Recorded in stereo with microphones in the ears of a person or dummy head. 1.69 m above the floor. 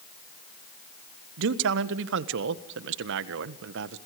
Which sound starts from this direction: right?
A man speaking, at 1.4 s.